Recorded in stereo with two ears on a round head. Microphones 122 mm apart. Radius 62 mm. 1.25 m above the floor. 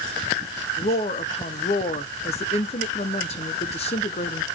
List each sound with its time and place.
0.8 s a woman speaking: 45° left (ahead or behind), 0.7 m